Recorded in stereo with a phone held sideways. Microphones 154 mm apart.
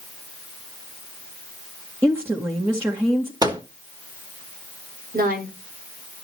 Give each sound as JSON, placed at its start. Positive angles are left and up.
{"t": 2.0, "sound": "a woman speaking", "side_deg": -15, "distance_m": 1.9}
{"t": 3.4, "sound": "a microwave", "side_deg": -25, "distance_m": 1.2}
{"t": 5.1, "sound": "a woman speaking", "side_deg": -80, "distance_m": 5.5}